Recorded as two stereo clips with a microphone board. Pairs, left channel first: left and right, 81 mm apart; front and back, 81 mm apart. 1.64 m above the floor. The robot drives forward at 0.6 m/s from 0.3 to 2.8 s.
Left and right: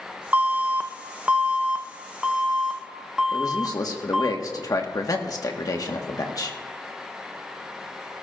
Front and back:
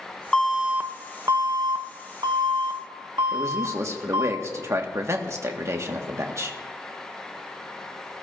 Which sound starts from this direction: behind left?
A man speaking, at 3.3 s.